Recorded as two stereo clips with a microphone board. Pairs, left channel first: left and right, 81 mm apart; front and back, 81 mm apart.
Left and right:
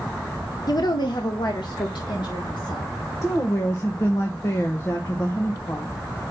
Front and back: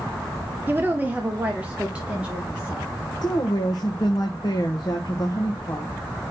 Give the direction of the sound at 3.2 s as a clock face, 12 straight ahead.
11 o'clock.